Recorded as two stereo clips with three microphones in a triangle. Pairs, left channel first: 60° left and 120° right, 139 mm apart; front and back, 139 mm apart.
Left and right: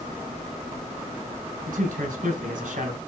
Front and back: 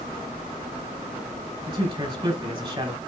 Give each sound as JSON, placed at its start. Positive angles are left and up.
{"t": 1.7, "sound": "a man speaking", "azimuth_deg": -130, "distance_m": 4.0}